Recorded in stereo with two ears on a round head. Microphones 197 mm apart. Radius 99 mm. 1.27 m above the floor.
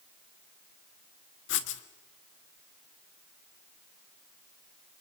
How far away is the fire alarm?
No fire alarm in this recording.